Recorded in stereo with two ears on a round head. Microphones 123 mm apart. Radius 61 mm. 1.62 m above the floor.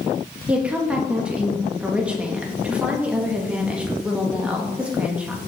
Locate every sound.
0.5 s a woman speaking: 10° right (ahead or behind), 2 m